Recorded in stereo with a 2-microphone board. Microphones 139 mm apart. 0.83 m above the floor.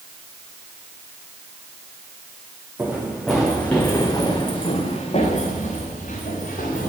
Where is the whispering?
I don't hear whispering.